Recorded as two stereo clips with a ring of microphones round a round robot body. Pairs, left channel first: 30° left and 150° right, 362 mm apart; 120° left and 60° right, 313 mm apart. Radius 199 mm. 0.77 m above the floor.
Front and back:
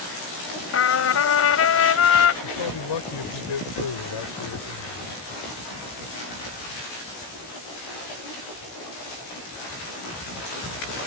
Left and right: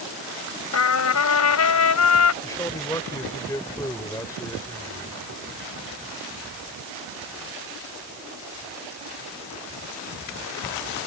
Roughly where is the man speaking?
Ahead left.